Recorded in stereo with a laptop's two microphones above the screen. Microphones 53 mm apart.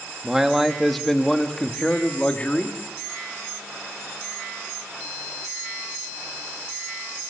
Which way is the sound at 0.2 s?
10° right (ahead or behind).